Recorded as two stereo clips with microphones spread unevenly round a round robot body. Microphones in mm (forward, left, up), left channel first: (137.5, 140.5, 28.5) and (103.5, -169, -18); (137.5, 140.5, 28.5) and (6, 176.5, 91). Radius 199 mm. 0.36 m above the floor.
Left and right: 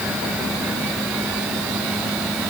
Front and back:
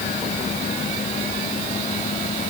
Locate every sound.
Only background noise.